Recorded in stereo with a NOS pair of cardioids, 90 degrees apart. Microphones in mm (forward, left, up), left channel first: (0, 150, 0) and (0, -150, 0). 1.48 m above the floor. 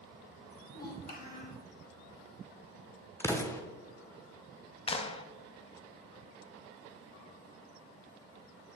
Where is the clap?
20° left, 0.8 m.